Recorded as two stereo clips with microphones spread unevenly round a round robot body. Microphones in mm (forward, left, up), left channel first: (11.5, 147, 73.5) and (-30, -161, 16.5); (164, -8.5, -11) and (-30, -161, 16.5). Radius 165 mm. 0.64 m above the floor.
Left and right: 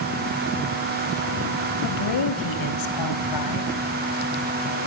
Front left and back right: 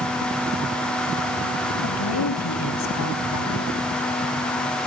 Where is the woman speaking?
55° left, 4.5 m; by 3.7 s 60° left, 5.5 m.